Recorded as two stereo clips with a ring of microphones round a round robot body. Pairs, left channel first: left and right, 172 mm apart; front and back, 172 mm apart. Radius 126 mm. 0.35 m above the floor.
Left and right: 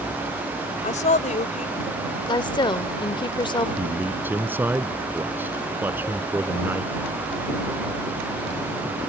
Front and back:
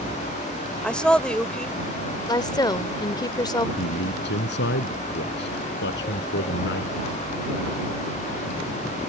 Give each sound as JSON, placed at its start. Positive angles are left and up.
{"t": 0.8, "sound": "a woman speaking", "azimuth_deg": 80}
{"t": 2.3, "sound": "a woman speaking", "azimuth_deg": 50}
{"t": 3.8, "sound": "a man speaking", "azimuth_deg": -10}